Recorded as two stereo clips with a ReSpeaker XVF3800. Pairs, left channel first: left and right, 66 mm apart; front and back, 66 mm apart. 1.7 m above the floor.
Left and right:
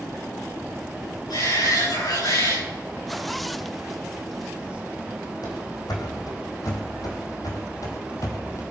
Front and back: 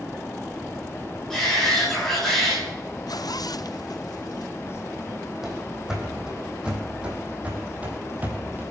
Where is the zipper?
Straight ahead, 0.6 m.